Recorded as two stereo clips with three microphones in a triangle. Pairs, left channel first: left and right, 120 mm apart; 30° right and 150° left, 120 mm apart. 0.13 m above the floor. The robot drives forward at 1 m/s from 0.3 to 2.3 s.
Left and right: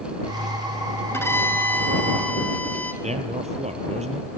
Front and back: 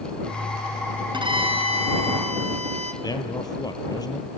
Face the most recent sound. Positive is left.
turn(degrees=-85)